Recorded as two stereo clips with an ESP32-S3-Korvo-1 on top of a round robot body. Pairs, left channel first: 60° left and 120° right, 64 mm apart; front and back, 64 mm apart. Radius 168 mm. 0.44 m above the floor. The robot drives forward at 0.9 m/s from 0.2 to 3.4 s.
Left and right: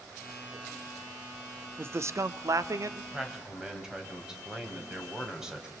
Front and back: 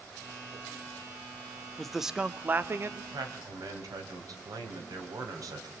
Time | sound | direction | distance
1.8 | a man speaking | 80° right | 1.1 m
3.1 | a man speaking | 160° left | 3.5 m